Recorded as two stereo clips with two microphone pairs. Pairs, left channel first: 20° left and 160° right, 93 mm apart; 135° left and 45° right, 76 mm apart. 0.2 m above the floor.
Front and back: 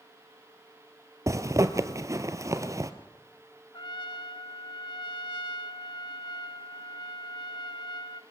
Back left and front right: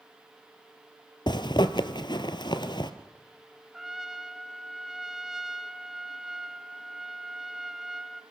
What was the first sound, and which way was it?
A zipper, 140° left.